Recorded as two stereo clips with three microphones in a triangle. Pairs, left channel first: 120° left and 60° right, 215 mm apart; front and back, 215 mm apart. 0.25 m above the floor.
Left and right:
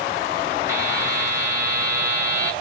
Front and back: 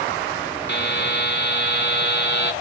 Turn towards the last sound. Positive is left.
turn(degrees=15)